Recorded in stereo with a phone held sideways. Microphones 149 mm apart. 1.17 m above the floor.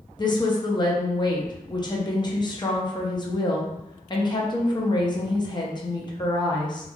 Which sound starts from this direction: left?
A woman speaking, at 0.2 s.